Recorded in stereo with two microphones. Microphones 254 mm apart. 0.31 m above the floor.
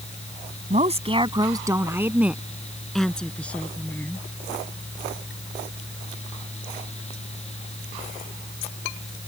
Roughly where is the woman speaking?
Right.